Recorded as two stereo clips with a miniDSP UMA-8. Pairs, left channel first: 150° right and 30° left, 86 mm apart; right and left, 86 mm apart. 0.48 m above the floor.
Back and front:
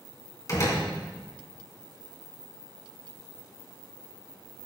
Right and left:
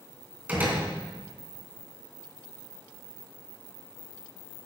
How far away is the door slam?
About 3 m.